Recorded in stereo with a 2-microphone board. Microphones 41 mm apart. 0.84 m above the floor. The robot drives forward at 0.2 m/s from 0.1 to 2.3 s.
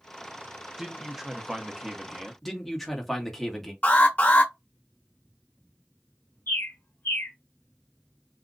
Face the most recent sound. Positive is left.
turn(degrees=55)  # may be behind; listen again after turning